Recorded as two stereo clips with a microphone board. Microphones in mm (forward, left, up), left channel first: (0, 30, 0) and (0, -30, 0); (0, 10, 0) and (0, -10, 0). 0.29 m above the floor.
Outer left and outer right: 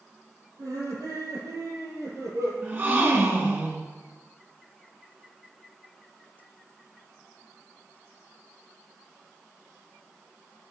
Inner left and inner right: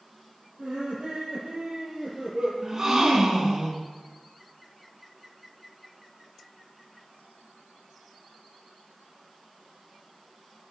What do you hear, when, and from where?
0.6 s laughter: 65° right (ahead or behind), 7.5 m; by 2.5 s 55° right (ahead or behind), 7 m
2.6 s a gasp: 35° right (ahead or behind), 3 m